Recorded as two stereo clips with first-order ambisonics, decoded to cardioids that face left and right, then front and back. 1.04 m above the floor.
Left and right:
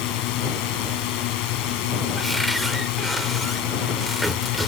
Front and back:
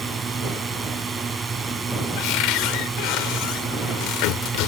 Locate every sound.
0.0 s a drone: 105° left
2.2 s a cupboard door: straight ahead